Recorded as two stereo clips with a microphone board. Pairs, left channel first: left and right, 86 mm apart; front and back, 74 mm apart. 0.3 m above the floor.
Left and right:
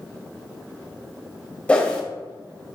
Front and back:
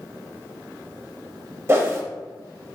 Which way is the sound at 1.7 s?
155° left.